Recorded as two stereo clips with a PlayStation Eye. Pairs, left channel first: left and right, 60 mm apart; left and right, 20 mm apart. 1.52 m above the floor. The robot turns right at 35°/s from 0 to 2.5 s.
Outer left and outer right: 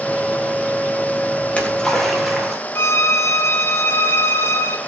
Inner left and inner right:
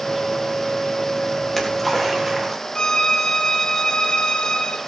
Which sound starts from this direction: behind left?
A splash, at 1.4 s.